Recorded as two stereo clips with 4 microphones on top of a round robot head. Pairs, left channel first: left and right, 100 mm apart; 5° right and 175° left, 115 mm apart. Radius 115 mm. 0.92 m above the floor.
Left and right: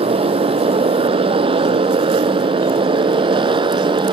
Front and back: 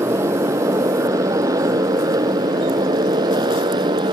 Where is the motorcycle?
115° right; by 4.1 s 125° right.